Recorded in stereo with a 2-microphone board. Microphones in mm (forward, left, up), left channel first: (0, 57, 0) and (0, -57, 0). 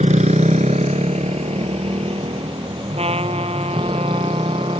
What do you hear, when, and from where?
0.0 s a motorcycle: 85° right; by 4.8 s 40° right (ahead or behind)
3.0 s a trumpet: 60° right (ahead or behind)